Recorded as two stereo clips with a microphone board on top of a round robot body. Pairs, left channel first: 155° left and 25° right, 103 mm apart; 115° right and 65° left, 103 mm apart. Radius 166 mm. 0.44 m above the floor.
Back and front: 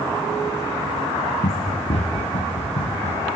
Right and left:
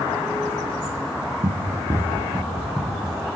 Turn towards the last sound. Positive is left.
turn(degrees=155)